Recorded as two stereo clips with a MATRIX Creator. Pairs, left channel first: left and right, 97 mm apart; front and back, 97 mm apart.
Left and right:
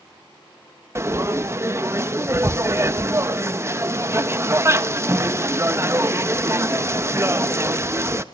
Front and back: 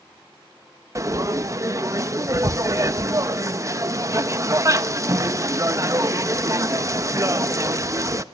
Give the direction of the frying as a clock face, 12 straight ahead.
5 o'clock.